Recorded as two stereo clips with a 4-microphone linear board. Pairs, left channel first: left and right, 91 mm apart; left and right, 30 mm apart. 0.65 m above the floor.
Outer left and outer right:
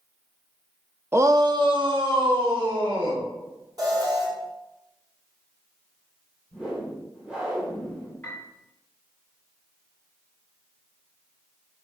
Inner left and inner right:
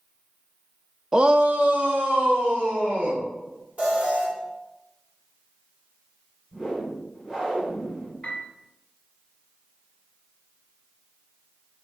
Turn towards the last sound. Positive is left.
turn(degrees=15)  # may be behind; listen again after turning